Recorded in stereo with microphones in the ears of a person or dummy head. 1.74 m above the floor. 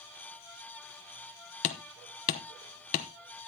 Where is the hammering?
45° left (ahead or behind), 1.0 m.